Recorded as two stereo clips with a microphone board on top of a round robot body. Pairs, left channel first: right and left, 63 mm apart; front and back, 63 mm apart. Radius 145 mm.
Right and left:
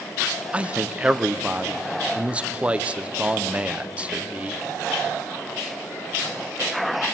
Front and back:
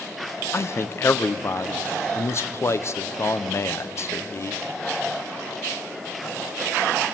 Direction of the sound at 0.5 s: 25° left.